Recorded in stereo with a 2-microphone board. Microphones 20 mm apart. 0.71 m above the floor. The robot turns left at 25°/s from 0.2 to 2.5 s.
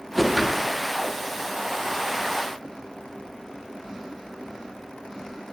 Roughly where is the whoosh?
Centre.